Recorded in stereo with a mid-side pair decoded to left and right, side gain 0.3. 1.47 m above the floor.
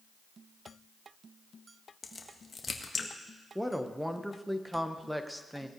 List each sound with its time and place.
2.0 s a crack: 45° left, 1.5 m
3.5 s a woman speaking: 5° right, 1.3 m